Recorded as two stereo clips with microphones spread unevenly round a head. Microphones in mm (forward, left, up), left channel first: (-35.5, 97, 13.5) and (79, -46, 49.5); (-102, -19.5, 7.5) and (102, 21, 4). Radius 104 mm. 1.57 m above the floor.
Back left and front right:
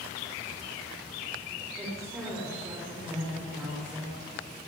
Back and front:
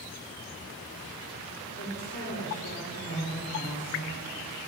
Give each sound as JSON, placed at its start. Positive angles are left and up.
{"t": 1.8, "sound": "a woman speaking", "azimuth_deg": -130, "distance_m": 5.5}